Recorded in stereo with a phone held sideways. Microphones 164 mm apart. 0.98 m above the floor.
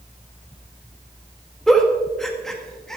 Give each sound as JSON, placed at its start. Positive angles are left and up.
{"t": 1.7, "sound": "a giggle", "side_deg": 0, "distance_m": 1.8}